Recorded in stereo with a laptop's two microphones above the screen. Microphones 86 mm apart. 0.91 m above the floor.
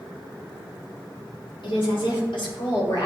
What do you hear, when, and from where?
1.6 s a woman speaking: 75° left (ahead or behind), 2.5 m; by 3.1 s 65° left (ahead or behind), 1.7 m